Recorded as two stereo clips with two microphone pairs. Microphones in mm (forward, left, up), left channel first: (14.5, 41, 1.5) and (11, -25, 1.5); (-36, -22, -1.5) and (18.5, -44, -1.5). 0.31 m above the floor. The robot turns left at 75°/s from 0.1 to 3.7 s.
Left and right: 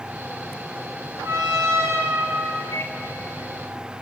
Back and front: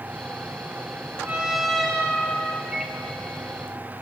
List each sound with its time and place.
1.2 s a trumpet: 80° right, 2 m; by 2.6 s straight behind, 2 m
2.7 s a microwave: 55° left, 2 m; by 3.0 s 40° left, 2 m